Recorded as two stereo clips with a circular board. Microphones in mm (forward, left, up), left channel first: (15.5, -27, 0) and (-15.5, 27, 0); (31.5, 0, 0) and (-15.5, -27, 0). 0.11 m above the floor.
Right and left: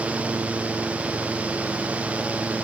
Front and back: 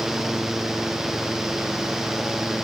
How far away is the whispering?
No whispering in this recording.